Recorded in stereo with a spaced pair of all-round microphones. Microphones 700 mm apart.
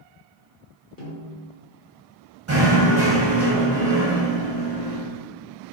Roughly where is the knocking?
Right.